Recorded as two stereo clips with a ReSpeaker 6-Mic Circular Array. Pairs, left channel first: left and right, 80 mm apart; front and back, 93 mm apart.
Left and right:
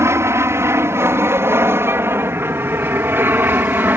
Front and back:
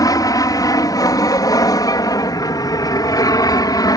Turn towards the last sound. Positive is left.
turn(degrees=-30)